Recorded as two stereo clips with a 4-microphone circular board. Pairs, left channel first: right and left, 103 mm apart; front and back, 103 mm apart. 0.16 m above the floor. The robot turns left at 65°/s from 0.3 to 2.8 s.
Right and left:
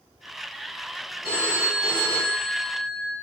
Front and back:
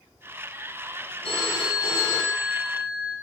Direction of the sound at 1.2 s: Straight ahead.